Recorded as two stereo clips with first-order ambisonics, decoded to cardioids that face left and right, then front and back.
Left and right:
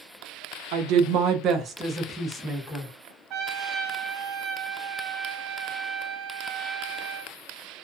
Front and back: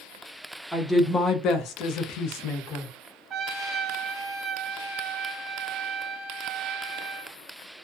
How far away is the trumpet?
About 0.6 m.